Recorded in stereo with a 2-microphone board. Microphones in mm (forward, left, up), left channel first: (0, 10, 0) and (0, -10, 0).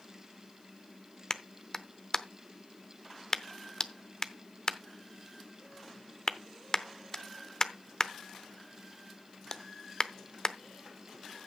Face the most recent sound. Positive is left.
turn(degrees=25)  # may be behind; listen again after turning